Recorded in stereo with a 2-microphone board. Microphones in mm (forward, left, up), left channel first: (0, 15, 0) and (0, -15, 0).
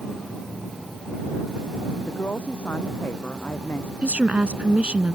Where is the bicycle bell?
I don't hear a bicycle bell.